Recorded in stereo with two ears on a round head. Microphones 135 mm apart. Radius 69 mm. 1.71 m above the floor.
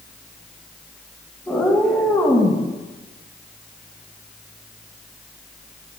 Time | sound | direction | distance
1.5 | a cat meowing | 10° left (ahead or behind) | 2.5 m